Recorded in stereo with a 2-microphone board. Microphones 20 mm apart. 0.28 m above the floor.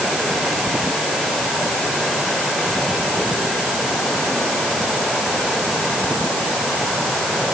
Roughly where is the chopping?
I don't hear chopping.